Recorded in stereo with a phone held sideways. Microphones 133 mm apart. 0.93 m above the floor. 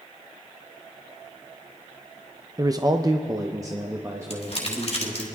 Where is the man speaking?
25° right (ahead or behind), 0.5 m; by 5.3 s 15° right (ahead or behind), 1.8 m.